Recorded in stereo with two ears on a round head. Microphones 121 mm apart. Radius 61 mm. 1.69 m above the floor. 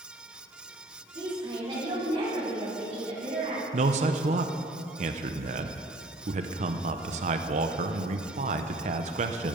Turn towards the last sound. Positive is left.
turn(degrees=-55)  # may be behind; listen again after turning